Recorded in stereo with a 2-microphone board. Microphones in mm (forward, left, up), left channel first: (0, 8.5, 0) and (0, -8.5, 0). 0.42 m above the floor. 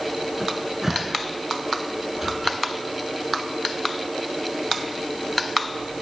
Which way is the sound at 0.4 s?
15° right (ahead or behind).